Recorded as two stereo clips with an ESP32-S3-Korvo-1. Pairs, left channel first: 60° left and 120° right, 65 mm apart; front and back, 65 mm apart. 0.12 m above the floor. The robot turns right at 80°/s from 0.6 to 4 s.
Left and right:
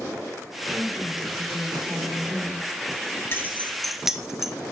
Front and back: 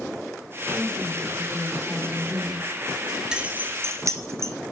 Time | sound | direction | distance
0.7 | a woman speaking | straight behind | 5.5 m
3.3 | keys jangling | 105° left | 1.3 m